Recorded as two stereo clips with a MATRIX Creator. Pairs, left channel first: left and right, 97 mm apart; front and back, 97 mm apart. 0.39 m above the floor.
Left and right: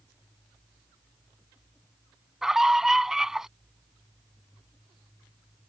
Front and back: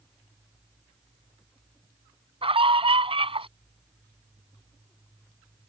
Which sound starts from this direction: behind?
A scream, at 2.4 s.